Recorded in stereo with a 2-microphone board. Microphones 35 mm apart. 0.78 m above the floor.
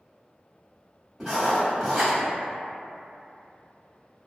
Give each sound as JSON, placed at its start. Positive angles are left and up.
{"t": 1.2, "sound": "writing", "side_deg": -15, "distance_m": 1.5}